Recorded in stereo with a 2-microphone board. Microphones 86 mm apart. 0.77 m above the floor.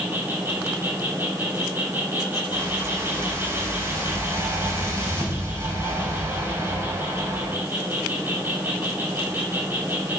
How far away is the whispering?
I don't hear whispering.